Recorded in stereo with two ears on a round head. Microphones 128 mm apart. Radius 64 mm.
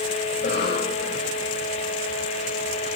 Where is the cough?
85° left, 5.5 m.